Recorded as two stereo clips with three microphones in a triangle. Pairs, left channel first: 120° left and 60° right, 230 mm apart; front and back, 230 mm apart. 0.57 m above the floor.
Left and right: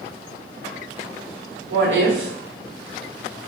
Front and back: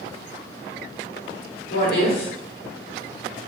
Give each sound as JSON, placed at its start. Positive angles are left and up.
{"t": 1.7, "sound": "a woman speaking", "azimuth_deg": -40, "distance_m": 1.4}